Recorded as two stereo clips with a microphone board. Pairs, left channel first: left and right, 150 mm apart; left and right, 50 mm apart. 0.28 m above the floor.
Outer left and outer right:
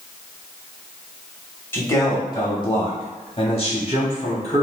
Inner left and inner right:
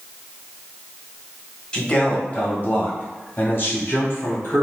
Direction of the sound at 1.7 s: 15° left (ahead or behind).